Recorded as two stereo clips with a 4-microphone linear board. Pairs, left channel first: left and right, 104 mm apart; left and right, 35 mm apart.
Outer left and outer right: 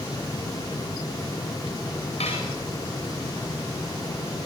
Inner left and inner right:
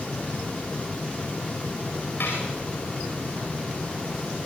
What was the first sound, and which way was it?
Dishes clattering, 80° left.